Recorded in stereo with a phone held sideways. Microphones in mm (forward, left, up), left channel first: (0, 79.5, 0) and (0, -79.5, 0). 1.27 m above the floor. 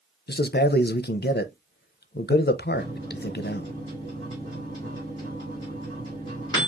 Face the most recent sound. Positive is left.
turn(degrees=25)  # may be behind; listen again after turning